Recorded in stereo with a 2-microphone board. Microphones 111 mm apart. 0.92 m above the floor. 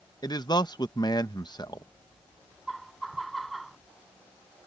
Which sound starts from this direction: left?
A man speaking, at 0.2 s.